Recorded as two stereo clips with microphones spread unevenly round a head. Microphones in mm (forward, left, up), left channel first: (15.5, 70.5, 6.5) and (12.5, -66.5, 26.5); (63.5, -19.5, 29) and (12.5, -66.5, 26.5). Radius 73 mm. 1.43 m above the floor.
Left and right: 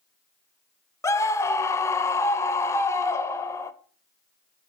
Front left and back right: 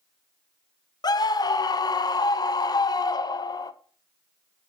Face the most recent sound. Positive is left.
turn(degrees=20)